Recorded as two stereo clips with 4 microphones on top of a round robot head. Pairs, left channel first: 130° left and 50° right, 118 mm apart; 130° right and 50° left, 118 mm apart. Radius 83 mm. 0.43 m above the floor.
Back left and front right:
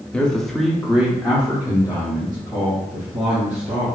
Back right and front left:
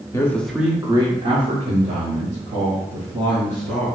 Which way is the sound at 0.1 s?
160° right.